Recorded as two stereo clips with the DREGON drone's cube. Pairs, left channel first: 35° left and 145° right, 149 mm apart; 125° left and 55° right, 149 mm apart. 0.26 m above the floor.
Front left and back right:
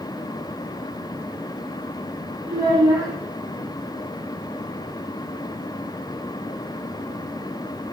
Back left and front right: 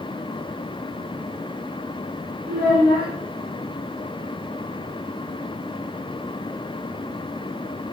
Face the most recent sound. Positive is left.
turn(degrees=-75)